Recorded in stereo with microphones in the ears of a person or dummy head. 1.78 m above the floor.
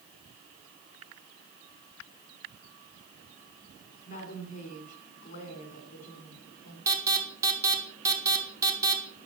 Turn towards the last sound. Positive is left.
turn(degrees=-15)  # may be behind; listen again after turning